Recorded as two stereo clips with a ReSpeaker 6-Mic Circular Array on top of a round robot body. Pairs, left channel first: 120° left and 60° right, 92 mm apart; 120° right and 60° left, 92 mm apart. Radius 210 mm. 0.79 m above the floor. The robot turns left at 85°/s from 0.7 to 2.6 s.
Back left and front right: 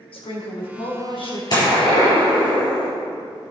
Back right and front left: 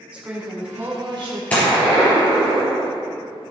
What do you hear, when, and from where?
0.1 s a woman speaking: 135° left, 3 m; by 1.4 s 80° left, 3 m
1.5 s a gunshot: 165° left, 4 m; by 2.9 s 70° left, 4 m